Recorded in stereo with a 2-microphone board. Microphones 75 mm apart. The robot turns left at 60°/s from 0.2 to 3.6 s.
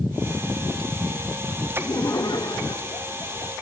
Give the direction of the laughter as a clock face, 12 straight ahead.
7 o'clock.